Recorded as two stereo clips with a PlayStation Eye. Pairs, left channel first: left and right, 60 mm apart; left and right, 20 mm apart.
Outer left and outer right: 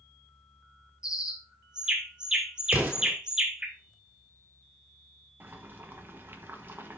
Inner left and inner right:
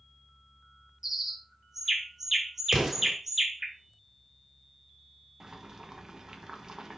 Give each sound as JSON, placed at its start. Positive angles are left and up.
{"t": 1.0, "sound": "a bird", "side_deg": -15, "distance_m": 1.5}
{"t": 2.7, "sound": "an explosion", "side_deg": -30, "distance_m": 3.0}
{"t": 5.4, "sound": "boiling", "side_deg": -35, "distance_m": 1.2}